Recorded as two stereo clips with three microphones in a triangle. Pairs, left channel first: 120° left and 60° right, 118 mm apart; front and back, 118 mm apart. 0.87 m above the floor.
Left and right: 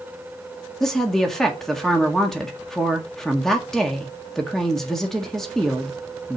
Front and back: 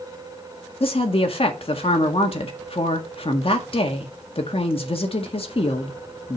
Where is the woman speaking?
35° left, 1.6 m.